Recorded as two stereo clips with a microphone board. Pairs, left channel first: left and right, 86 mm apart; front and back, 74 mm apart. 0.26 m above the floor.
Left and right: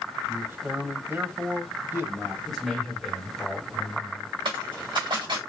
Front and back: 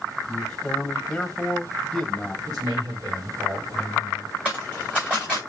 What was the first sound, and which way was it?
A man speaking, 70° right.